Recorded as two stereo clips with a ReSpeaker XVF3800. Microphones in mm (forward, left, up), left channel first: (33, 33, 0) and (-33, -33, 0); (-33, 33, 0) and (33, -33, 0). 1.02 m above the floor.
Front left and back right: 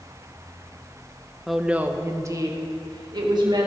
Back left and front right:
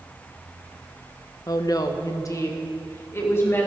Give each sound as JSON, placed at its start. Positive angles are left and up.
{"t": 1.5, "sound": "a woman speaking", "azimuth_deg": 135, "distance_m": 0.9}